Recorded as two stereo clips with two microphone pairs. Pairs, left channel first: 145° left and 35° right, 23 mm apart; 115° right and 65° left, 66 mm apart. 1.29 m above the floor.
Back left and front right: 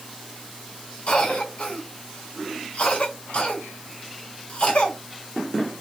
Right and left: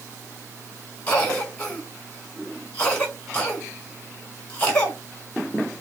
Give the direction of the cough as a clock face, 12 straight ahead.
6 o'clock.